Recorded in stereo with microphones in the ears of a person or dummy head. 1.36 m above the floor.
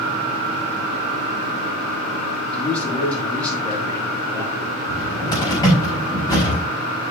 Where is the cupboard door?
25° left (ahead or behind), 4.5 m.